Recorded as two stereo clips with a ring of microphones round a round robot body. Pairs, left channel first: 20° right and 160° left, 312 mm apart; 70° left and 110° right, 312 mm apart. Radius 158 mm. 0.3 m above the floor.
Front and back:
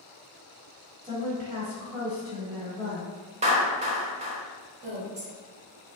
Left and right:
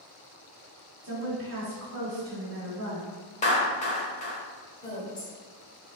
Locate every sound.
1.0 s a woman speaking: 135° right, 1.3 m
3.4 s a clap: 110° left, 0.7 m
4.8 s a woman speaking: 135° left, 1.6 m